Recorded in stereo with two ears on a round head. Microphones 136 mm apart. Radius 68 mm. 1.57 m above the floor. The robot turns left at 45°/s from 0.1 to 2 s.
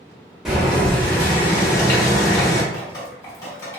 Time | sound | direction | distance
0.5 | boiling | centre (ahead or behind) | 0.9 m
2.7 | dripping | 25° left (ahead or behind) | 1.3 m